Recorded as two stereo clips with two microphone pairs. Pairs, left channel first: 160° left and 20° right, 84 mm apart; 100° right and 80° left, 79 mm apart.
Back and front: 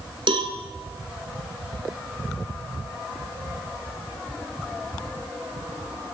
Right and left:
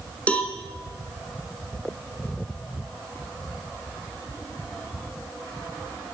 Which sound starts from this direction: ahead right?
A cowbell, at 0.3 s.